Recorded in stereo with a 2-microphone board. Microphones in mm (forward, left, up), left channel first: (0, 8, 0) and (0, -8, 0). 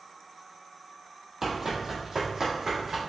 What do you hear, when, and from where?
1.4 s running footsteps: 10° right (ahead or behind), 1.1 m; by 3.0 s 30° right (ahead or behind), 2 m